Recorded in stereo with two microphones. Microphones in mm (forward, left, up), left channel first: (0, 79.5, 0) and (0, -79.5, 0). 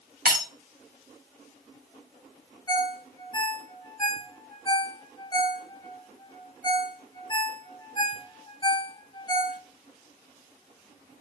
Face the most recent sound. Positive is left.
turn(degrees=30)  # may be behind; listen again after turning